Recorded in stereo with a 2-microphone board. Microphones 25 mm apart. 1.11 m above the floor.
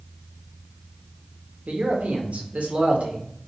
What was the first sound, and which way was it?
A man speaking, 65° right (ahead or behind).